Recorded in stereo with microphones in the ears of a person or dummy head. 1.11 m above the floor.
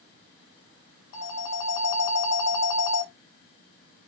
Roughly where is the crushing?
I don't hear crushing.